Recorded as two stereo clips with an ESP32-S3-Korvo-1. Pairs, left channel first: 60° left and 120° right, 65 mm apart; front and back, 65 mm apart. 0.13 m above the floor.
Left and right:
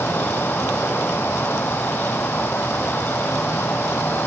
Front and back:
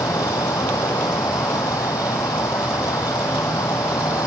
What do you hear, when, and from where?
0.0 s an insect: straight ahead